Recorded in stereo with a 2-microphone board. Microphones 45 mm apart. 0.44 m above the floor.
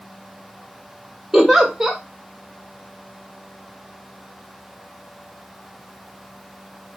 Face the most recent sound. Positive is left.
turn(degrees=-10)  # may be behind; listen again after turning